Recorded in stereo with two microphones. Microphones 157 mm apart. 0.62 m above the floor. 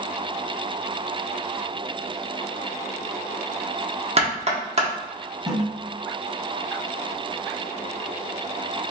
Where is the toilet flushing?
30° right (ahead or behind), 1.6 m.